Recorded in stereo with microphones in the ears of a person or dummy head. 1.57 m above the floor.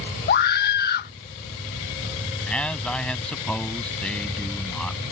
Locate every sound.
0.3 s a scream: 55° left (ahead or behind)
2.5 s a man speaking: centre (ahead or behind)